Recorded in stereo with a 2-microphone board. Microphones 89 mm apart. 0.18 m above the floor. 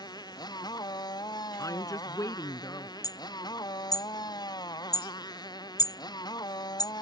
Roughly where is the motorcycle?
Left.